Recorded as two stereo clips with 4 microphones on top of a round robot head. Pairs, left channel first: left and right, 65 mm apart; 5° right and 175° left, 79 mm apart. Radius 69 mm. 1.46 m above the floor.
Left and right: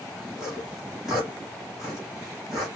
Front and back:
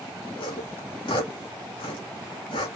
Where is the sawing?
5° right, 1.8 m.